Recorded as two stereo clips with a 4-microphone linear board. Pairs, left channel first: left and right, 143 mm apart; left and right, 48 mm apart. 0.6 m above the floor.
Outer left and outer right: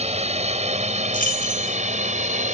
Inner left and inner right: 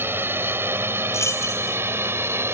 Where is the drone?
50° right (ahead or behind); by 2.5 s 60° right (ahead or behind).